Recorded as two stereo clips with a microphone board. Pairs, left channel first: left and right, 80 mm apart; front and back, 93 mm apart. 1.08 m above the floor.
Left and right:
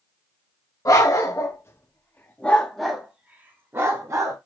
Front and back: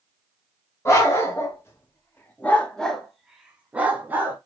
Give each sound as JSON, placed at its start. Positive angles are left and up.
{"t": 0.8, "sound": "a dog barking", "azimuth_deg": 50, "distance_m": 1.3}